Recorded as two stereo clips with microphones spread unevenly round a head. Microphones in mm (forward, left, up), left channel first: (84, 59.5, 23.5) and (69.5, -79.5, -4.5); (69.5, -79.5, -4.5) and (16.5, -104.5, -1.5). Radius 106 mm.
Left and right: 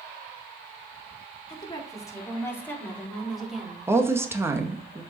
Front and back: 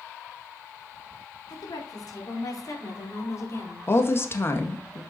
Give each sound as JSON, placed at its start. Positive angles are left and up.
{"t": 1.5, "sound": "a woman speaking", "azimuth_deg": 25, "distance_m": 4.5}
{"t": 3.9, "sound": "a woman speaking", "azimuth_deg": -25, "distance_m": 1.9}